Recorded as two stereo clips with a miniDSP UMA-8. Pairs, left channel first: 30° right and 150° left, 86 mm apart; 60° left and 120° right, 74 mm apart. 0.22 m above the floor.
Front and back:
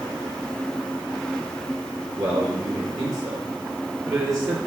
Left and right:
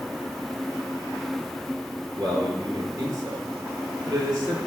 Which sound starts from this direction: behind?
A man speaking, at 2.2 s.